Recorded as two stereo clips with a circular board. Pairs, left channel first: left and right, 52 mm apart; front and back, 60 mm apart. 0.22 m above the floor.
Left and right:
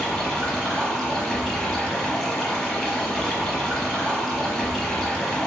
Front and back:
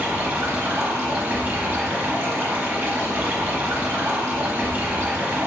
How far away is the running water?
About 0.9 m.